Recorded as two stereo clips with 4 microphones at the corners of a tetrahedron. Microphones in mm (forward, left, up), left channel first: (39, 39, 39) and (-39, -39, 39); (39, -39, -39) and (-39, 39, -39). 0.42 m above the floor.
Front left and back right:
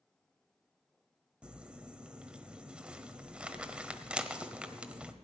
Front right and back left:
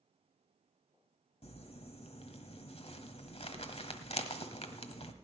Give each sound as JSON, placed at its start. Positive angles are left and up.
{"t": 1.4, "sound": "crumpling", "azimuth_deg": -55, "distance_m": 1.2}